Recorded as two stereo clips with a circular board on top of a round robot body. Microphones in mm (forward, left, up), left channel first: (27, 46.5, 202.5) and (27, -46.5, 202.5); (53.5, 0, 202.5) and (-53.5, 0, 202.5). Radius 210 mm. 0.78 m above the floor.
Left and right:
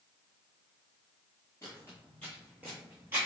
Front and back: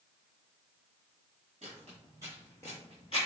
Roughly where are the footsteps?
Behind left.